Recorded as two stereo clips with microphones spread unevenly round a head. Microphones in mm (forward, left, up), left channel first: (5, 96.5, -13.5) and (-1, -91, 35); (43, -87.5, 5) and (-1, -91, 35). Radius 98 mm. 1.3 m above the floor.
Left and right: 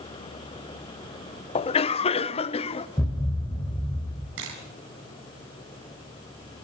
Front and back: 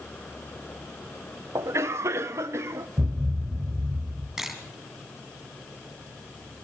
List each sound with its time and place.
1.6 s a cough: 125° left, 0.7 m
3.0 s a thud: 170° left, 2 m
4.4 s a camera shutter: 105° right, 4 m